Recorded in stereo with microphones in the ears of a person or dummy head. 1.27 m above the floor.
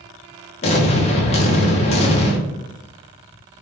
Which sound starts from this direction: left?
An explosion, at 0.6 s.